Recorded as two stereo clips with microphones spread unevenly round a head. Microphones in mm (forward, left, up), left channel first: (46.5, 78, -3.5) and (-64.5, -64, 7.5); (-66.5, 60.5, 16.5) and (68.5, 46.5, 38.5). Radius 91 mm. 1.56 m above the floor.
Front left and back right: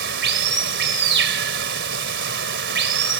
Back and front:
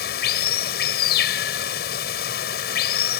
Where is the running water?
150° right.